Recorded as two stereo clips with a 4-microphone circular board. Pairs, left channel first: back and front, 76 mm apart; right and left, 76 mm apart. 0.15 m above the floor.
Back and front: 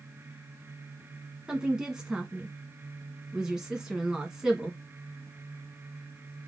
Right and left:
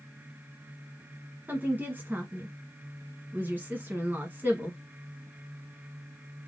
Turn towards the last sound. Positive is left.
turn(degrees=70)